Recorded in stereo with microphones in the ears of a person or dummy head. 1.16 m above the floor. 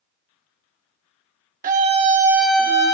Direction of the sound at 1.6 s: 40° right (ahead or behind).